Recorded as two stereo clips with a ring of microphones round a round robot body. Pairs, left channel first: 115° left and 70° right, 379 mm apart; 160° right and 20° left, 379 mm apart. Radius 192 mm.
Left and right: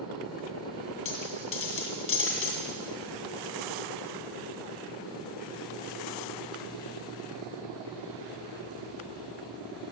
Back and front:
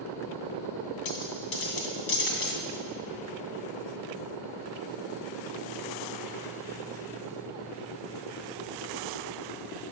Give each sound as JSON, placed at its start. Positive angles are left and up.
{"t": 1.1, "sound": "a dropped coin", "azimuth_deg": 170, "distance_m": 2.5}